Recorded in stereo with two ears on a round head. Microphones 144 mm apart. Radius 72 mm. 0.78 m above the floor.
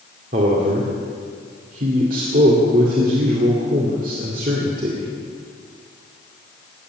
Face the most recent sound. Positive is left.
turn(degrees=-55)  # may be behind; listen again after turning